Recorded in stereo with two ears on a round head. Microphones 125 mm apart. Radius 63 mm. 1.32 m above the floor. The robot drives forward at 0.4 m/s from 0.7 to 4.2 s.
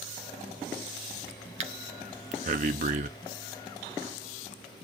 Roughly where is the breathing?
Right.